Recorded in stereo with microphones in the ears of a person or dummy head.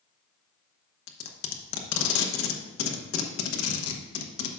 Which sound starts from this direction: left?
Tape being pulled, at 1.1 s.